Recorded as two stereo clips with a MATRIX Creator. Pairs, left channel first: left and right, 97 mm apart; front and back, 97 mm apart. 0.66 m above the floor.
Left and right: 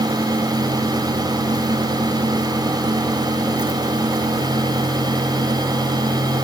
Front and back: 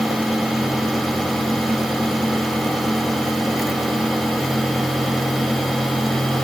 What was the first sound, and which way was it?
Only background noise.